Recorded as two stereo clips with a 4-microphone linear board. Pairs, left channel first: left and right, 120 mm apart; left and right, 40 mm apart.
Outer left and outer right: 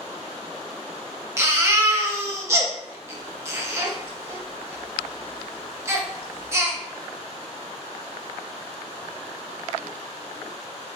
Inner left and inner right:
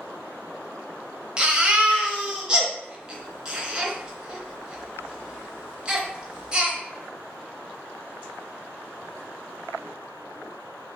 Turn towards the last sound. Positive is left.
turn(degrees=-25)  # may be behind; listen again after turning